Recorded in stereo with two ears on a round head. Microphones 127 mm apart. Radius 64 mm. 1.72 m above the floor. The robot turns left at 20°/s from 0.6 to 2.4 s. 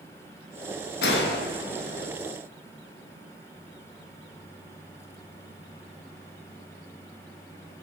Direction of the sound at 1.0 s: 85° left.